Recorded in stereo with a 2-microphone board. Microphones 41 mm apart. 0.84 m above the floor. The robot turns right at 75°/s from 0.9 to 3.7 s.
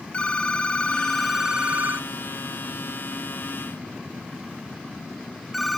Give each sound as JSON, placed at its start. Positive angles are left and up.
{"t": 0.1, "sound": "a phone ringing", "side_deg": 30, "distance_m": 0.6}